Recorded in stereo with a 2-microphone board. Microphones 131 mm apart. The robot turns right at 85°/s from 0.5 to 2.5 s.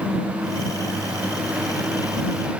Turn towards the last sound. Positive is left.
No sound to turn to.